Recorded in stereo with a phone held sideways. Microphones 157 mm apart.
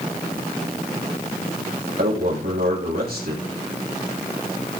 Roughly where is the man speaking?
Right.